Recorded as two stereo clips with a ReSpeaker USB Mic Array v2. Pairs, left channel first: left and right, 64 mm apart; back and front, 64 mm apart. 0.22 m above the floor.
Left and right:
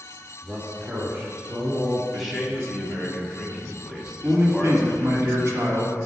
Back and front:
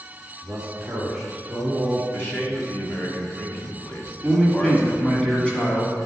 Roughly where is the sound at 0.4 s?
Ahead right.